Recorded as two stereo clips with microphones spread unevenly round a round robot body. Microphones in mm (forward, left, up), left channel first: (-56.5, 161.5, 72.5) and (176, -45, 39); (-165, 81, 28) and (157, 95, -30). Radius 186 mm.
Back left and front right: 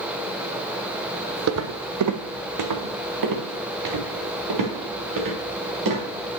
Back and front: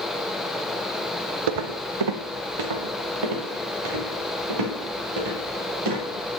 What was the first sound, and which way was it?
Footsteps, 5° left.